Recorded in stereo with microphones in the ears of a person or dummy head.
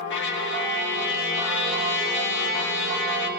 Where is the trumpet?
60° left (ahead or behind), 2 m.